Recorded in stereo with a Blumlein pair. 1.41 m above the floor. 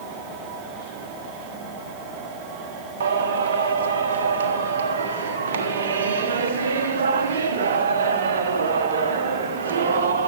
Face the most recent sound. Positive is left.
turn(degrees=-60)